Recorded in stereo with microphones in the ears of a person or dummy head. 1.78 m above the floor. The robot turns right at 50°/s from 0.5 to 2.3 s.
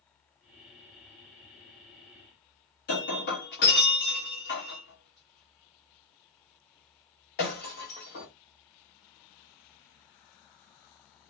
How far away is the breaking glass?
About 1.4 m.